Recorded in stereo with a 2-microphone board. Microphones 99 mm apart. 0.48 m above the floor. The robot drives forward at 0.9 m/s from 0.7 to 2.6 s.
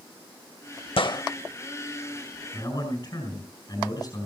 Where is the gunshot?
65° left (ahead or behind), 0.5 m; by 1.2 s 45° left (ahead or behind), 0.7 m.